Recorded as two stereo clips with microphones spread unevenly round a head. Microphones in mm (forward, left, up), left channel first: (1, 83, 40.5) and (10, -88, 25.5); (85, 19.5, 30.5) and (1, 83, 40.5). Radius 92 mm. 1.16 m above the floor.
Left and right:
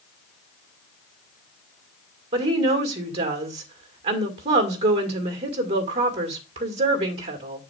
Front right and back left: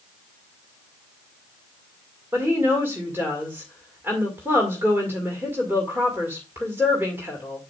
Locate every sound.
2.3 s a woman speaking: 140° right, 1.9 m